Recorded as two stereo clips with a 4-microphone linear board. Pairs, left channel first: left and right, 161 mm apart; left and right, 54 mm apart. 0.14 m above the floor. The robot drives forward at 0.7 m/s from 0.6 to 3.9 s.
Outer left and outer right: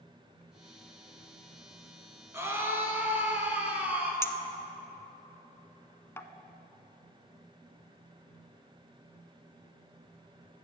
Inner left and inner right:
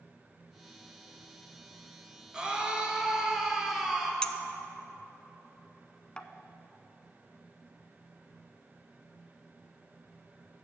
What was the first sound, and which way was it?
A scream, 15° right (ahead or behind).